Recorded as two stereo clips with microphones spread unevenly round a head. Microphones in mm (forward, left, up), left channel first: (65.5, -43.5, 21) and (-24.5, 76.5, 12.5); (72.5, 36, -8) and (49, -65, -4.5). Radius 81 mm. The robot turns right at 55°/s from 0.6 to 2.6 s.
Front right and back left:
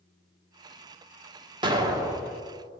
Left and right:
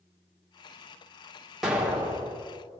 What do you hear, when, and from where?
1.6 s an explosion: 165° left, 0.9 m; by 2.4 s 150° right, 0.9 m